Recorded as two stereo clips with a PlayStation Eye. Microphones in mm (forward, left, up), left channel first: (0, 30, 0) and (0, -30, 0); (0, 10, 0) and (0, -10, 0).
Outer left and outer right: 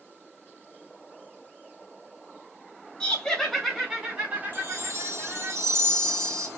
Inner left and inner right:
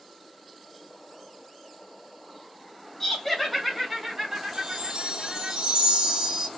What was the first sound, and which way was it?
Laughter, 20° left (ahead or behind).